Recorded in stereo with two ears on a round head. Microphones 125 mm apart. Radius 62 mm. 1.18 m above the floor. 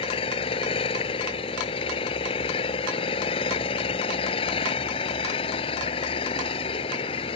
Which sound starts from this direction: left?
An engine running, at 0.0 s.